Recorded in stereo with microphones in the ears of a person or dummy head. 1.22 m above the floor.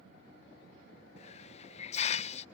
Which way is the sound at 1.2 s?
40° left (ahead or behind).